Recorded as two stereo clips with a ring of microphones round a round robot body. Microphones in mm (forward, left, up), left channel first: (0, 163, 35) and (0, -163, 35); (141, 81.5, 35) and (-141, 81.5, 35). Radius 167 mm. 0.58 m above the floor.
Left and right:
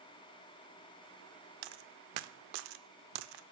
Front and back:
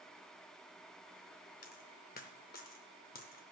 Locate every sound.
1.6 s a dropped coin: 65° right, 0.5 m